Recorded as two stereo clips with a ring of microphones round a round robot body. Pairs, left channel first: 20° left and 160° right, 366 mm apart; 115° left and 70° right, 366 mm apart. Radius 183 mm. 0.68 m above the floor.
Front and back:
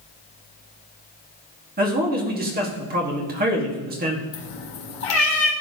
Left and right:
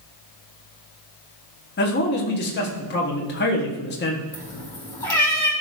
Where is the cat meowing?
30° left, 3.5 m.